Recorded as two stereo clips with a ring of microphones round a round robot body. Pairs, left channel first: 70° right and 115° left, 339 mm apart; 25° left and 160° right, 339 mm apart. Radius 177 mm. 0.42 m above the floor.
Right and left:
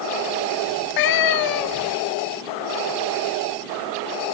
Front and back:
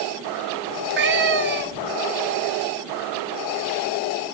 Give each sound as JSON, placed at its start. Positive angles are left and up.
{"t": 0.7, "sound": "a cat meowing", "azimuth_deg": -100, "distance_m": 1.0}